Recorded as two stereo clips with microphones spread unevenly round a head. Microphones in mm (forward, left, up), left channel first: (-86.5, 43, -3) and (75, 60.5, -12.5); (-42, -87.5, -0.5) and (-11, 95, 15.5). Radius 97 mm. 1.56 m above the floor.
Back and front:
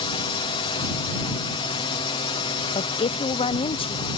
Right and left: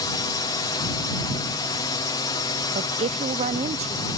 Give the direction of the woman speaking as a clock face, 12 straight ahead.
8 o'clock.